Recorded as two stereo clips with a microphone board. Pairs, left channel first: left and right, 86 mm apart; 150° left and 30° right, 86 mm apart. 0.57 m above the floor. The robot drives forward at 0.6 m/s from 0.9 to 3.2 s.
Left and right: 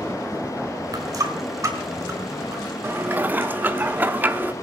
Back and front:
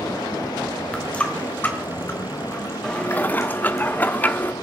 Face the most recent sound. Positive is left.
turn(degrees=-150)